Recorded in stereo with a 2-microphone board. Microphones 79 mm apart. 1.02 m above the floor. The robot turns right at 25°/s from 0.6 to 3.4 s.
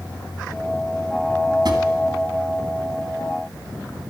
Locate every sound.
1.6 s a drawer: 65° right (ahead or behind), 2 m